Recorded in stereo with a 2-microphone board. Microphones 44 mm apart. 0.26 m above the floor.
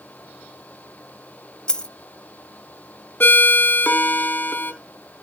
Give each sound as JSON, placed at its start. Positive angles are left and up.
{"t": 1.7, "sound": "a dropped coin", "side_deg": 20, "distance_m": 0.5}
{"t": 3.2, "sound": "a ringtone", "side_deg": 50, "distance_m": 0.9}